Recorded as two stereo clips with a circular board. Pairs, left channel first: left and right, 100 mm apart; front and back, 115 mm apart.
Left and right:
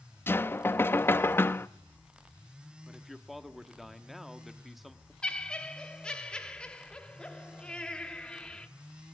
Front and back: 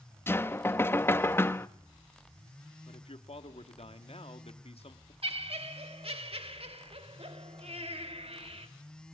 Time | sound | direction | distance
0.3 | knocking | 45° left | 0.5 m
2.9 | a man speaking | straight ahead | 1.4 m
5.2 | laughter | 170° left | 1.5 m